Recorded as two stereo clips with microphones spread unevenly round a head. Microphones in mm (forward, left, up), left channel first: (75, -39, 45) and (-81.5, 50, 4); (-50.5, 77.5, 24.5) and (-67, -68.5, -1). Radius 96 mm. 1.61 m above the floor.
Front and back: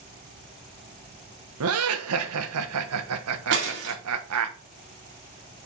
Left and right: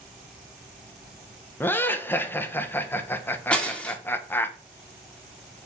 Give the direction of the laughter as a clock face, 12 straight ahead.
7 o'clock.